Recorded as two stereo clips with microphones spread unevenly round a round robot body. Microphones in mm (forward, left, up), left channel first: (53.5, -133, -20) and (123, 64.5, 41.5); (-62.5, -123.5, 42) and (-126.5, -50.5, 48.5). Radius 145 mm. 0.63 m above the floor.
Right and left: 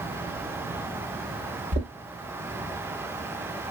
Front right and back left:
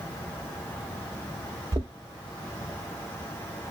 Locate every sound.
1.7 s knocking: 115° left, 0.7 m